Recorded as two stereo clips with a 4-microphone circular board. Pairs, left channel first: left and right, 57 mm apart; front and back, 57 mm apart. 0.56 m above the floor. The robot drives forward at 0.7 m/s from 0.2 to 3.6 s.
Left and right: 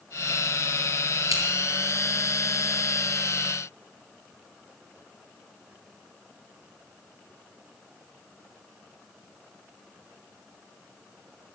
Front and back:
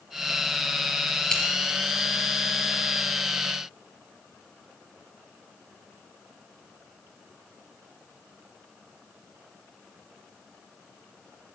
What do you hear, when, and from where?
1.3 s scissors: 80° right, 4 m; by 1.4 s 85° right, 4 m